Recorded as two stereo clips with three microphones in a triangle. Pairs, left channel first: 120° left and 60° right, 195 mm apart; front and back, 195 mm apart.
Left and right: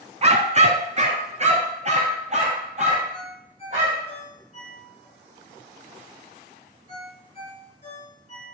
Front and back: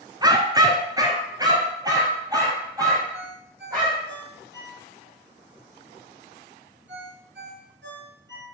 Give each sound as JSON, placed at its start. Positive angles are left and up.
{"t": 0.2, "sound": "a dog barking", "azimuth_deg": -115, "distance_m": 0.6}
{"t": 3.1, "sound": "a ringtone", "azimuth_deg": 175, "distance_m": 2.5}